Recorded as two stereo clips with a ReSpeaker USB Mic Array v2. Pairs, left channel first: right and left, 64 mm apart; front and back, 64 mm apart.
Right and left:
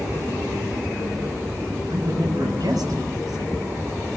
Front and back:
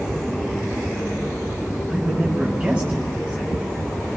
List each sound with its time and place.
1.9 s a man speaking: 95° left, 8.5 m